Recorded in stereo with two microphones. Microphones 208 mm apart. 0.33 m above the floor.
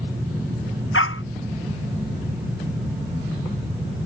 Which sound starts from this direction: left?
A dog barking, at 0.9 s.